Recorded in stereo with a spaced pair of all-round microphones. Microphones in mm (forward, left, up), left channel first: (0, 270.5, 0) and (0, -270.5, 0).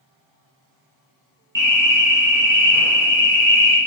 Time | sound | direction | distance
1.6 | an alarm | 20° right (ahead or behind) | 0.7 m